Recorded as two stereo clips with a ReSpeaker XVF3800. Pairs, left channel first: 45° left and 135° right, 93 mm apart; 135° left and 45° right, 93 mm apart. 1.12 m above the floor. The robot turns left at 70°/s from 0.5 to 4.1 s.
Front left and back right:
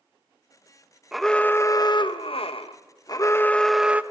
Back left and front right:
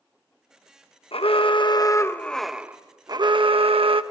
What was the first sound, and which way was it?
An alarm, 140° left.